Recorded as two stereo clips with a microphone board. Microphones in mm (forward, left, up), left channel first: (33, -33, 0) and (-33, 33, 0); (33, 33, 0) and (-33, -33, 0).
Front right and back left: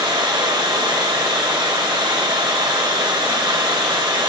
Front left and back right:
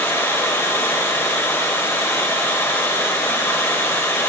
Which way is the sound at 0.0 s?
105° left.